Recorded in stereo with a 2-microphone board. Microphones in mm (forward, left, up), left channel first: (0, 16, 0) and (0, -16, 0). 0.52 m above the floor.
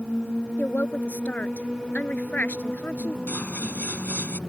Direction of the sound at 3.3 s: 55° left (ahead or behind).